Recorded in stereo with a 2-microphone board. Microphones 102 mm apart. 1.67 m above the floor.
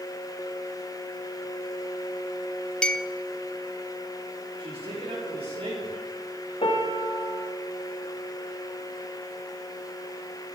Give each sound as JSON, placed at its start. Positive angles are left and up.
{"t": 2.8, "sound": "a clink", "side_deg": 5, "distance_m": 0.6}
{"t": 4.6, "sound": "a man speaking", "side_deg": -80, "distance_m": 4.5}
{"t": 6.6, "sound": "a piano", "side_deg": 60, "distance_m": 1.6}